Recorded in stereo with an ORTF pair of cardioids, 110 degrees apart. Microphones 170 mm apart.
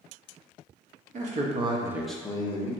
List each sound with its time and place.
1.1 s a man speaking: 55° right, 0.9 m; by 2.7 s 40° left, 0.8 m